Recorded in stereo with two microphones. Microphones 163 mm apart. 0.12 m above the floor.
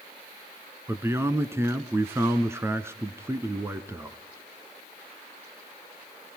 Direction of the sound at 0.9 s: 15° right (ahead or behind).